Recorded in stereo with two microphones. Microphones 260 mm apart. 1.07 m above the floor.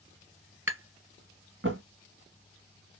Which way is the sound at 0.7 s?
45° right (ahead or behind).